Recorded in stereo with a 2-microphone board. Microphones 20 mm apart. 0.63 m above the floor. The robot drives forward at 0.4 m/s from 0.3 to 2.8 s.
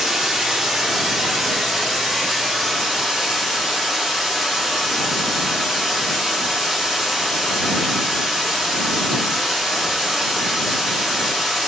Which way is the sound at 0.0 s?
25° right (ahead or behind).